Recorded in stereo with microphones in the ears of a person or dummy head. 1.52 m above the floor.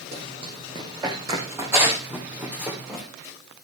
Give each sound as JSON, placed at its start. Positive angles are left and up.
{"t": 0.1, "sound": "running footsteps", "side_deg": -35, "distance_m": 4.0}